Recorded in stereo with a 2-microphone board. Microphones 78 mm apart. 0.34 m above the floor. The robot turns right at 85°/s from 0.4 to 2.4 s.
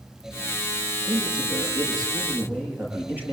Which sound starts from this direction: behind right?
A man speaking, at 1.1 s.